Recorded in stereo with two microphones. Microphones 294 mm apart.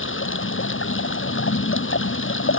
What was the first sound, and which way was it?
Running water, 40° left (ahead or behind).